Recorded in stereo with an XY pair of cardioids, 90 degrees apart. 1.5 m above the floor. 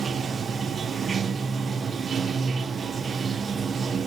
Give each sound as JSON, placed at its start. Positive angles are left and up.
{"t": 0.0, "sound": "running water", "azimuth_deg": -50, "distance_m": 1.0}